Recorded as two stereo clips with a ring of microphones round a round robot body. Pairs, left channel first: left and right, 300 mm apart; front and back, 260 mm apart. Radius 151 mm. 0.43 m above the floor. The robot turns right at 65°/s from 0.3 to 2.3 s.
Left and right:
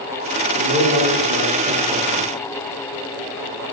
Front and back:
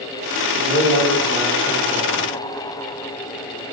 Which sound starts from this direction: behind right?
A man speaking, at 0.6 s.